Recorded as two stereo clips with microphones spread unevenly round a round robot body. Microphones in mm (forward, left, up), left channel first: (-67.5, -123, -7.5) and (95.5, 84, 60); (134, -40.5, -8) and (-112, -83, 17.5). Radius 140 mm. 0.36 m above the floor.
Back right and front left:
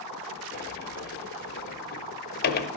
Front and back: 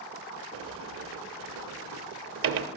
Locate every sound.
0.5 s a sliding door: 150° right, 0.7 m